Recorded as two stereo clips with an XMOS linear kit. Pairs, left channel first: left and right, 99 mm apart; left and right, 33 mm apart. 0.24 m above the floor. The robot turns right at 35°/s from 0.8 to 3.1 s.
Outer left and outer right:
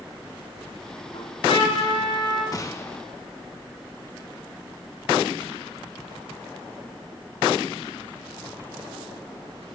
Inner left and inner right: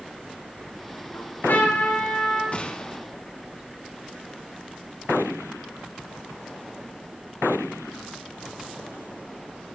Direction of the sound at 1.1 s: 85° left.